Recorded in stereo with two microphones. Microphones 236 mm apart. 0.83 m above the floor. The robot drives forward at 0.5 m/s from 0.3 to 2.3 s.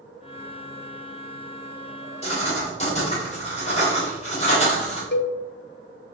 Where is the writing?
30° left (ahead or behind), 3.5 m.